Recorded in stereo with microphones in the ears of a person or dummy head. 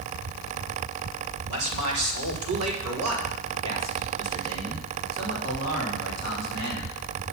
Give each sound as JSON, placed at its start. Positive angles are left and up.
{"t": 1.5, "sound": "a man speaking", "side_deg": -80, "distance_m": 3.0}